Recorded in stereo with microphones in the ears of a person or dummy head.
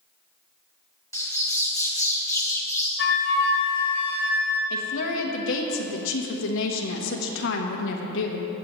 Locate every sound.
1.1 s a bird: 15° left (ahead or behind), 1.0 m
3.0 s a flute: 65° left (ahead or behind), 1.7 m
4.7 s a woman speaking: 65° left (ahead or behind), 1.2 m